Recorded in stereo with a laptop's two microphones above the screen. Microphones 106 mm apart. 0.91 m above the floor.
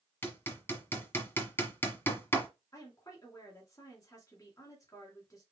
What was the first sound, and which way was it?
Hammering, 20° left (ahead or behind).